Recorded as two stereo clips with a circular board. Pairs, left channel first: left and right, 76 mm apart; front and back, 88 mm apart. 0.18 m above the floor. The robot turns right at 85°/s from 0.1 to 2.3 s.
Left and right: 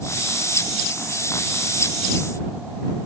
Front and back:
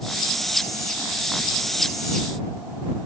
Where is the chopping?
No chopping in this recording.